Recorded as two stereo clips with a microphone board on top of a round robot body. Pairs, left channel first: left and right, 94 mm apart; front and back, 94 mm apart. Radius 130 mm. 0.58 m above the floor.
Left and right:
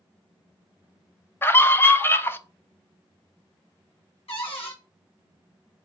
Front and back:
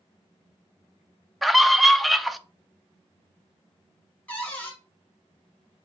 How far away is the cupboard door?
About 1.7 m.